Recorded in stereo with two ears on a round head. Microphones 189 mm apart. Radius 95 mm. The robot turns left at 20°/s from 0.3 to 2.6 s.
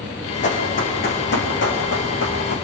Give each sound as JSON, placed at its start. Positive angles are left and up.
{"t": 0.4, "sound": "running footsteps", "side_deg": 35, "distance_m": 5.0}